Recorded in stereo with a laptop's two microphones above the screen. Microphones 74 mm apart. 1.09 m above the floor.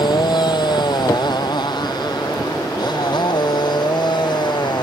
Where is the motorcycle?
85° left; by 4.8 s 90° left.